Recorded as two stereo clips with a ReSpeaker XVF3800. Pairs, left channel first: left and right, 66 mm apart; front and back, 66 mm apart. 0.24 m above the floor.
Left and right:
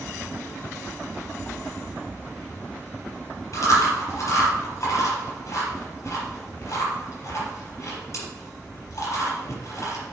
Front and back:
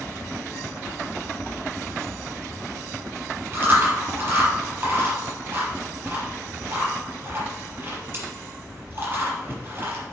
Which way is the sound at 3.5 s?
125° left.